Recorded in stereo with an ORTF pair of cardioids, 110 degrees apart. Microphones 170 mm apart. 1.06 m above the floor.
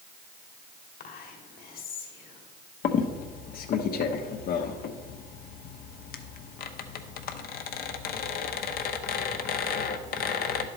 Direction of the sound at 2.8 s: 60° left.